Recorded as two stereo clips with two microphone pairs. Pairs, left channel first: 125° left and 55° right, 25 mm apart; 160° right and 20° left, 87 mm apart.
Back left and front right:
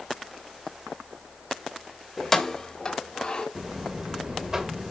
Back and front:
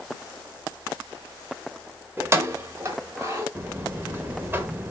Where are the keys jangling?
35° left, 0.8 m; by 3.5 s 75° left, 1.8 m.